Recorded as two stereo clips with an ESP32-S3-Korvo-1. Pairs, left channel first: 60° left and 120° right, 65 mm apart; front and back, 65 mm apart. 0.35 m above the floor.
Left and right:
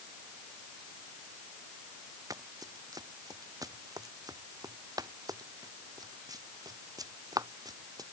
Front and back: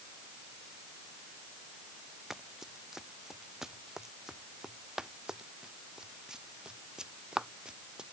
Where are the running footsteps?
95° right; by 8.1 s 100° right.